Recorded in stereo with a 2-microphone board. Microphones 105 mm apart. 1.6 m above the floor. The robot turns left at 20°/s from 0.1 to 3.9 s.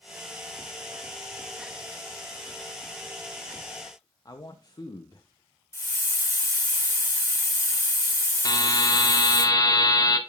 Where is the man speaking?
35° left (ahead or behind), 0.8 m.